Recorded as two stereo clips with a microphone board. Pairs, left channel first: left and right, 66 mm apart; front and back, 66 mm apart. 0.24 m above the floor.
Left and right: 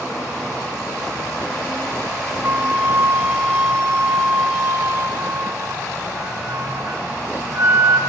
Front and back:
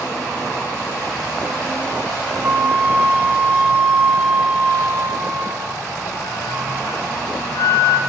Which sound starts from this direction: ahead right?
A flute, at 2.4 s.